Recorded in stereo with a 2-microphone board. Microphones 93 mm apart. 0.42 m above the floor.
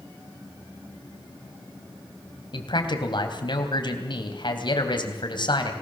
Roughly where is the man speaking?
Left.